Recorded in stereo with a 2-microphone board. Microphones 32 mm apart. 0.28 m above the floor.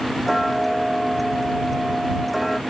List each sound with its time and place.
0.3 s ticking: centre (ahead or behind)